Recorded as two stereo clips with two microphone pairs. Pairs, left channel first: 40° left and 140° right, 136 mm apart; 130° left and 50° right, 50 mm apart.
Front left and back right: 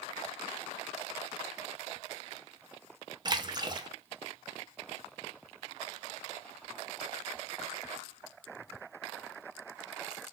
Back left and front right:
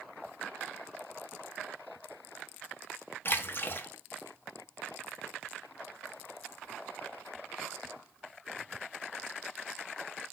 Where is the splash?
160° left, 0.5 m.